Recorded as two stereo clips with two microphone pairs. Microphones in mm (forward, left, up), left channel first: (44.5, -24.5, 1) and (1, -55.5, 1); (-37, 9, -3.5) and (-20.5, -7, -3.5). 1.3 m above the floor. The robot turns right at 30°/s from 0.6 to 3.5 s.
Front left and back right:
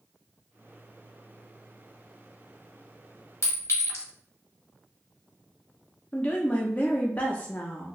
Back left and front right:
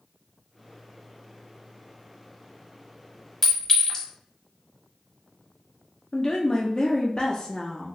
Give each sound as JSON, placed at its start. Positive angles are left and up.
{"t": 3.4, "sound": "a clink", "azimuth_deg": 60, "distance_m": 1.1}
{"t": 6.1, "sound": "a woman speaking", "azimuth_deg": 90, "distance_m": 0.5}